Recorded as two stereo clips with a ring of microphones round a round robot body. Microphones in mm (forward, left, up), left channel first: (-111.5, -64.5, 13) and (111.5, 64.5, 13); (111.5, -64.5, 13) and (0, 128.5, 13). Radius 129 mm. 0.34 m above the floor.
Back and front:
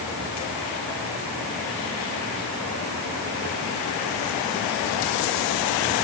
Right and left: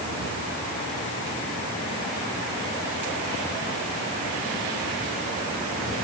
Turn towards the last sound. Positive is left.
No sound to turn to.